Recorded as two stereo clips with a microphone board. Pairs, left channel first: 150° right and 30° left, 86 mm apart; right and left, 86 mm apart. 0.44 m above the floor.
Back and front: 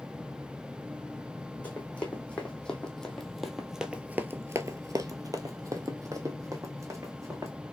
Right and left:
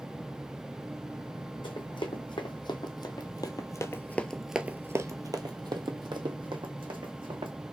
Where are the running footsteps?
75° right, 1.6 m; by 7.5 s 85° left, 1.7 m.